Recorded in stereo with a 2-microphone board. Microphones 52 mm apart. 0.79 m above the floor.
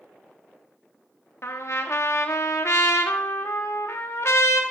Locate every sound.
1.4 s a trumpet: 60° left (ahead or behind), 0.9 m